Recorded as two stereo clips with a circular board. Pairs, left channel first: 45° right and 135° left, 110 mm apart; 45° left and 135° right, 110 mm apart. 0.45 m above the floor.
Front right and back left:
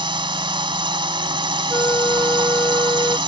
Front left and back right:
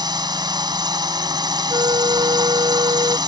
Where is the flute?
105° right.